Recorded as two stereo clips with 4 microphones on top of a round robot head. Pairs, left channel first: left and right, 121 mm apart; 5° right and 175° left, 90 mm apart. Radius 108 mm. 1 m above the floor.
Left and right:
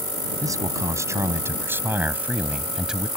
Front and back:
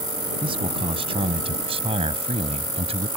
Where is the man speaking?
150° right; by 3.1 s 175° right.